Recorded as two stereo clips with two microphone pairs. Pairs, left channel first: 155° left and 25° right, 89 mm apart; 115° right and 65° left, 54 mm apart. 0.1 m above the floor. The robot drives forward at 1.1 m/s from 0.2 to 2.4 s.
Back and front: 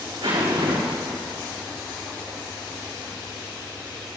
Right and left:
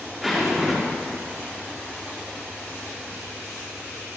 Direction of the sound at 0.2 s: 20° right.